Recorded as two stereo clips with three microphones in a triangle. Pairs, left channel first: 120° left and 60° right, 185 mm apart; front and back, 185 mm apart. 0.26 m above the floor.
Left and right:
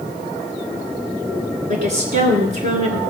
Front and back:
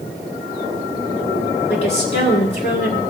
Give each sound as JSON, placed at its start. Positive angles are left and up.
{"t": 1.7, "sound": "a woman speaking", "azimuth_deg": -45, "distance_m": 2.0}